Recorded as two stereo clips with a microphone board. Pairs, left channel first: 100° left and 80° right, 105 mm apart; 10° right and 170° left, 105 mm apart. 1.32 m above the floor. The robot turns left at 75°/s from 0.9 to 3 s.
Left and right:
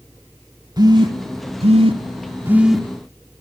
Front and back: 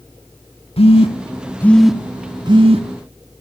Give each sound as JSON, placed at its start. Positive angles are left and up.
{"t": 0.8, "sound": "a phone buzzing", "azimuth_deg": -30, "distance_m": 2.0}